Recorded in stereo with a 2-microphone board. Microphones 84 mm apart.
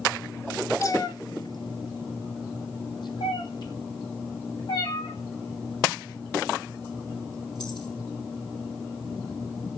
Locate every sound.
0.8 s a cat meowing: 40° left (ahead or behind), 0.5 m; by 7.9 s 55° left (ahead or behind), 5 m